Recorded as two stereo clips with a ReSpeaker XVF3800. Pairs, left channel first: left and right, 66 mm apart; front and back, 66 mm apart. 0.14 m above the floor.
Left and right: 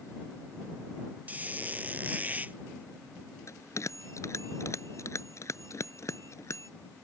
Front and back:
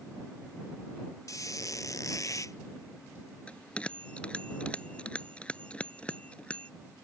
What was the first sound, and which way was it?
A squeak, 25° right.